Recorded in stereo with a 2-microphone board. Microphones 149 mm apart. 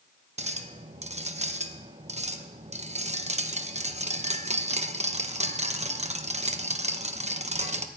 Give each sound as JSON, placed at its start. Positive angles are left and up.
{"t": 0.4, "sound": "a clink", "side_deg": -50, "distance_m": 0.8}